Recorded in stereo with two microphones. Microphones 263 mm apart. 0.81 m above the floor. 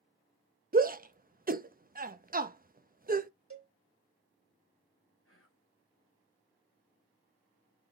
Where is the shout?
35° right (ahead or behind), 0.7 m.